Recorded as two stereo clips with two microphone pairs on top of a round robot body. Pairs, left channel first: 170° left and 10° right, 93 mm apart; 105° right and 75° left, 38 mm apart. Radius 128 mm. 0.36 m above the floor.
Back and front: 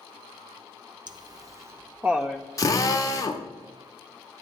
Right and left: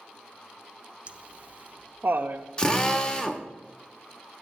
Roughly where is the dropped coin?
No dropped coin in this recording.